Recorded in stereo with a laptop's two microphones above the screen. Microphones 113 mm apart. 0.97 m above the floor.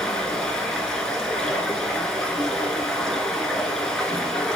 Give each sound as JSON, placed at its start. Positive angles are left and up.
{"t": 0.0, "sound": "running water", "side_deg": 5, "distance_m": 0.9}